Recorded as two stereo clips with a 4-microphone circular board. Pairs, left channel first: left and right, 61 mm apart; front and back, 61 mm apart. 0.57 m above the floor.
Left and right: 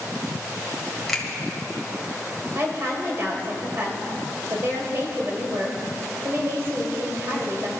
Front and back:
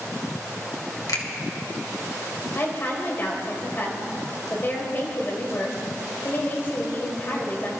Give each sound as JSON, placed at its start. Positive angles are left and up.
{"t": 1.1, "sound": "a finger snap", "azimuth_deg": 5, "distance_m": 1.8}
{"t": 2.5, "sound": "a woman speaking", "azimuth_deg": -50, "distance_m": 2.5}